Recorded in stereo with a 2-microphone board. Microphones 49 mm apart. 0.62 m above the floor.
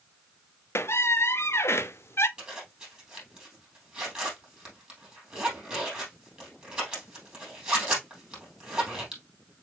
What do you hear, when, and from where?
0.8 s a squeak: 55° left (ahead or behind), 0.5 m
2.4 s a zipper: 20° right (ahead or behind), 3 m